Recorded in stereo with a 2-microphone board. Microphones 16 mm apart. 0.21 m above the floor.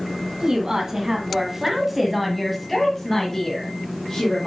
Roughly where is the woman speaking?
Right.